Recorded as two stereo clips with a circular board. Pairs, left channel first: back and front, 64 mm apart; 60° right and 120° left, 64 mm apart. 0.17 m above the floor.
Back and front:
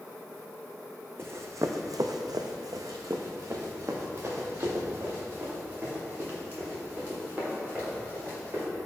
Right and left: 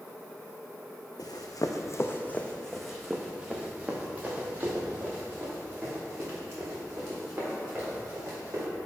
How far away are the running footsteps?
About 0.8 m.